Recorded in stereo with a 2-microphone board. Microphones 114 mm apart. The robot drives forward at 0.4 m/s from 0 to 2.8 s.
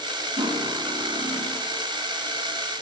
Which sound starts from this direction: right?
Cutlery clinking, at 0.4 s.